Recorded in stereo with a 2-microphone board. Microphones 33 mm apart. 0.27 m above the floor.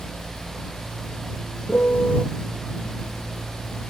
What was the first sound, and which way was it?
A piano, 60° left (ahead or behind).